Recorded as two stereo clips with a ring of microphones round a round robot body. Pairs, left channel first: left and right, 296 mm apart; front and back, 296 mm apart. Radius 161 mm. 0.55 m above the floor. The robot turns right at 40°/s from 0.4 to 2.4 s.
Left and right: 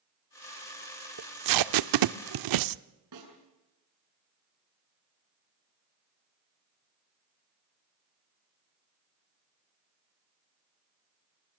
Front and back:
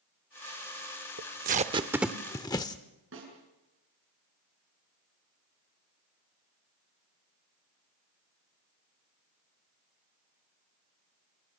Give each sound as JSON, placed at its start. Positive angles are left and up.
{"t": 1.2, "sound": "tape being pulled", "azimuth_deg": -125, "distance_m": 0.6}
{"t": 3.1, "sound": "a snare drum", "azimuth_deg": -125, "distance_m": 7.0}